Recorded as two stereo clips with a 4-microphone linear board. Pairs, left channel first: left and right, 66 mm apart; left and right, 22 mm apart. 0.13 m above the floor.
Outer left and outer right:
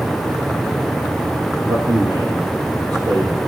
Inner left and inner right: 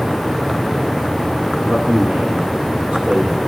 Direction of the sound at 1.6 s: 65° right (ahead or behind).